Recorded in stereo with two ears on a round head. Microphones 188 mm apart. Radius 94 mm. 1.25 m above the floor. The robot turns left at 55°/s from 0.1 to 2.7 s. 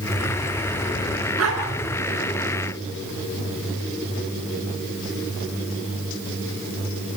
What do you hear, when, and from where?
1.4 s a dog barking: 75° right (ahead or behind), 6.5 m; by 1.6 s 85° right, 6.5 m